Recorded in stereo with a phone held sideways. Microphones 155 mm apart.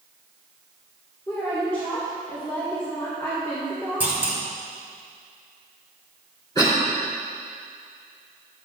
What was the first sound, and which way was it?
A woman speaking, 15° left (ahead or behind).